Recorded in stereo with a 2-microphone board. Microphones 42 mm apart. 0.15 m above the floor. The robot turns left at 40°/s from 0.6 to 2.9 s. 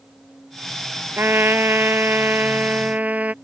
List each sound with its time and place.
1.2 s a trumpet: 70° right; by 3.3 s 140° right